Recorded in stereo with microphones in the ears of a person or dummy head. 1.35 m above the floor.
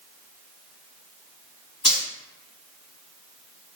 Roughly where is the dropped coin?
Left.